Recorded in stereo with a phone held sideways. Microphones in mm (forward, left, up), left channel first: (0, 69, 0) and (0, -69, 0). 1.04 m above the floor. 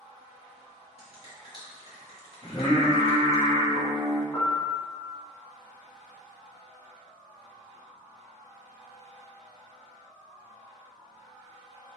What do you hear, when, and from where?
1.0 s a finger snap: 45° left (ahead or behind), 1.7 m
2.4 s singing: 55° left (ahead or behind), 1.7 m
4.3 s a piano: 15° left (ahead or behind), 1.4 m